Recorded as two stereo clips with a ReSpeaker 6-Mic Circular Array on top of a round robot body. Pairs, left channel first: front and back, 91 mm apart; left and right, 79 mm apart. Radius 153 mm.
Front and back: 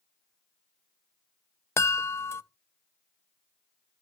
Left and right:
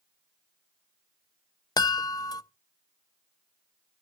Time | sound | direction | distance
1.8 | a chime | 60° left | 0.7 m